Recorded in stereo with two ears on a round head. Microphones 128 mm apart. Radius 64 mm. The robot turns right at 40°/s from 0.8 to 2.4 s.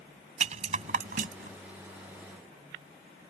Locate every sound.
0.4 s a rattle: 55° right (ahead or behind); by 1.6 s 70° right (ahead or behind)